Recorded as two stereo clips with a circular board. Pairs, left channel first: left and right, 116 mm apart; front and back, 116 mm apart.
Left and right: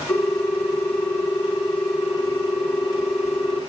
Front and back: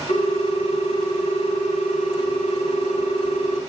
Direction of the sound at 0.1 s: 15° left.